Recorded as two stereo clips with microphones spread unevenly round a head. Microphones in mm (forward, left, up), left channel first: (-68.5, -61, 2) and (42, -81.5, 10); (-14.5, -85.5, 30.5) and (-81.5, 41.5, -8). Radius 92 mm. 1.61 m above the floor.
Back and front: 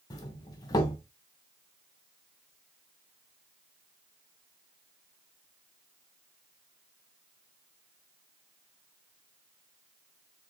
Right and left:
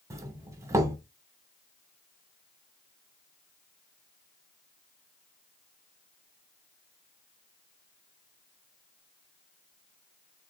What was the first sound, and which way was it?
A doorbell, 145° left.